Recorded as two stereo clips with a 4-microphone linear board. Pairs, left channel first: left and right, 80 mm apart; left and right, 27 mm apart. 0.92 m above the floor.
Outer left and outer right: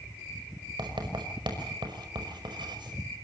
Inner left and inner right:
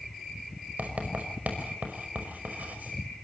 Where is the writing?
70° right (ahead or behind), 5.5 m.